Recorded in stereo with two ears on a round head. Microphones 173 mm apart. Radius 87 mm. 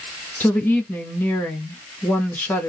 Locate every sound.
0.4 s a woman speaking: 10° left (ahead or behind), 1.0 m